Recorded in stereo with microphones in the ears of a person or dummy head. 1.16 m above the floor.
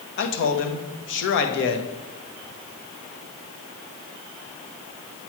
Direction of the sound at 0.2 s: 60° left (ahead or behind).